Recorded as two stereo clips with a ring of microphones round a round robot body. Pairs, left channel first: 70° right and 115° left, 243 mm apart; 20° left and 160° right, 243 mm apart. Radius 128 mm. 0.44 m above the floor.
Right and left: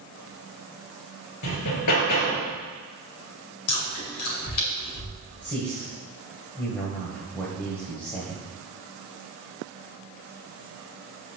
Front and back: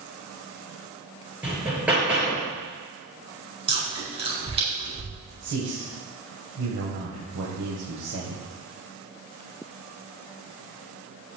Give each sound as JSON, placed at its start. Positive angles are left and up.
{"t": 1.4, "sound": "hammering", "azimuth_deg": -75, "distance_m": 4.0}
{"t": 3.7, "sound": "chewing", "azimuth_deg": -90, "distance_m": 4.5}
{"t": 5.4, "sound": "a man speaking", "azimuth_deg": -150, "distance_m": 2.5}